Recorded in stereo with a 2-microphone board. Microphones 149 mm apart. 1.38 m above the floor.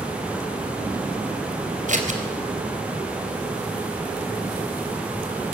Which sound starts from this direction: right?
Scissors, at 1.9 s.